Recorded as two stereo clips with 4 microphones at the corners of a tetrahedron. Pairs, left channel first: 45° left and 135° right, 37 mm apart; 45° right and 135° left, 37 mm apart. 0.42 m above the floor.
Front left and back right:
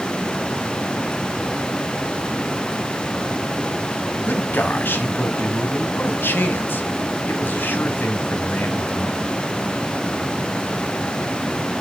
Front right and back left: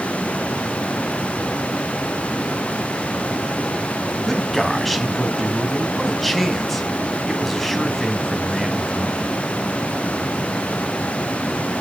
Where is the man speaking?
40° left, 2.5 m.